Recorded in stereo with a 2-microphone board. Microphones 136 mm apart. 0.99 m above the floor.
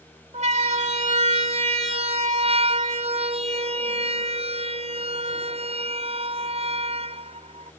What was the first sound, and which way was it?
A siren, 55° right (ahead or behind).